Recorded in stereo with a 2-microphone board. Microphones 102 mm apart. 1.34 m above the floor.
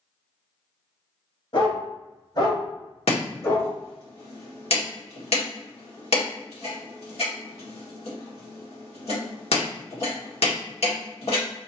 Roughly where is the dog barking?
Left.